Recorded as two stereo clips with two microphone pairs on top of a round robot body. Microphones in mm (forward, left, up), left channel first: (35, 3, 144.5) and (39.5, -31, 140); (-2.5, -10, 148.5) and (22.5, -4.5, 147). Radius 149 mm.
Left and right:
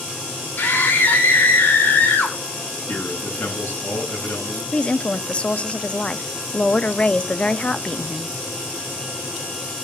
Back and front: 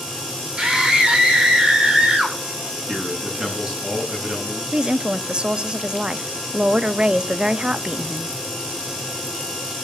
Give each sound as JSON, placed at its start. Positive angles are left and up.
{"t": 0.6, "sound": "a scream", "azimuth_deg": 75, "distance_m": 7.5}
{"t": 2.9, "sound": "a man speaking", "azimuth_deg": 90, "distance_m": 10.0}
{"t": 4.7, "sound": "a woman speaking", "azimuth_deg": 40, "distance_m": 1.2}